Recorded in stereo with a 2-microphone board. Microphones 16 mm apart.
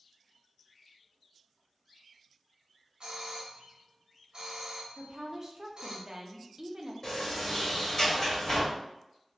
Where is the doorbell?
65° right (ahead or behind), 1.0 m.